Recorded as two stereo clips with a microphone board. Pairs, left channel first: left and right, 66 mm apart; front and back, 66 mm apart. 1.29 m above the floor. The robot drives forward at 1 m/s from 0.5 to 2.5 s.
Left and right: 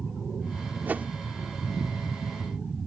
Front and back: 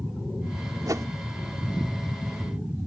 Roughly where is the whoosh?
Behind right.